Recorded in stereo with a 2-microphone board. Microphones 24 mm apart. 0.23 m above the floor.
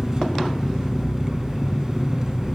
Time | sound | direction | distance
0.0 | an engine running | 30° right (ahead or behind) | 0.8 m